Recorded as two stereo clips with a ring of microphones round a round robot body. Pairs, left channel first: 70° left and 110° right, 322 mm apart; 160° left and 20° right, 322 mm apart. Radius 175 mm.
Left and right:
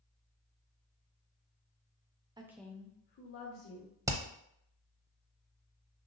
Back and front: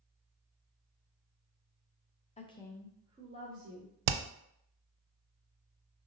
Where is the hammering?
30° right, 0.5 m.